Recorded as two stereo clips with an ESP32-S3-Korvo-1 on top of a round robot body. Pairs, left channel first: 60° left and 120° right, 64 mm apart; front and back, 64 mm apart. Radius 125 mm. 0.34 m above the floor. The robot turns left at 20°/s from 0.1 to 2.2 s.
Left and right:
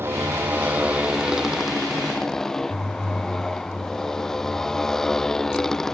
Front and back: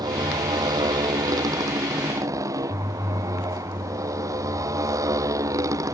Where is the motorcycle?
175° right; by 6.0 s 145° left.